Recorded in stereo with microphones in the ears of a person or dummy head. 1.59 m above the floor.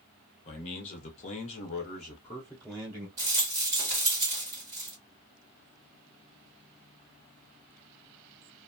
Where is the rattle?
25° right (ahead or behind), 1.4 m.